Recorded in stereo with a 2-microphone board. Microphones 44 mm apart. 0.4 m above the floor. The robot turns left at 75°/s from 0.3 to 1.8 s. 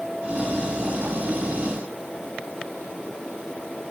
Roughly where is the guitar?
No guitar in this recording.